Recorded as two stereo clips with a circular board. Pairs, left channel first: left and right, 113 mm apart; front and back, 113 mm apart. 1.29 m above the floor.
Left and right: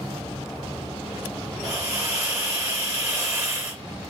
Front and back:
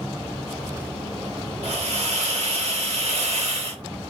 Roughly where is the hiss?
Behind.